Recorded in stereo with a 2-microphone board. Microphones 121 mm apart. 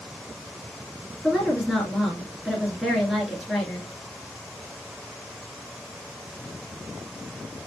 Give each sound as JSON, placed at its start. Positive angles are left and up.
{"t": 1.2, "sound": "a woman speaking", "side_deg": 0, "distance_m": 1.7}